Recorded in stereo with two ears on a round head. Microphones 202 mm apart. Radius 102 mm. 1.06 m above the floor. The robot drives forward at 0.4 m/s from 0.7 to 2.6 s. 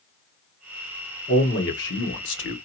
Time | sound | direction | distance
1.3 | a man speaking | 50° left (ahead or behind) | 1.2 m